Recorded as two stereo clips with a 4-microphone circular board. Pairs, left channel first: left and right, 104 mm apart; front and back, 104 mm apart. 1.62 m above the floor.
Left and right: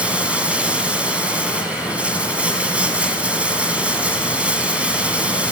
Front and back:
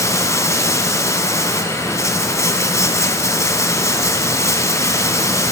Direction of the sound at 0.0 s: 20° right.